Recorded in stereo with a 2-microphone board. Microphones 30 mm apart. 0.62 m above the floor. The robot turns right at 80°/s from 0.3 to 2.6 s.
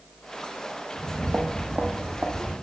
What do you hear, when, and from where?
0.9 s footsteps: 50° right (ahead or behind), 0.9 m; by 2.5 s 40° right (ahead or behind), 1.9 m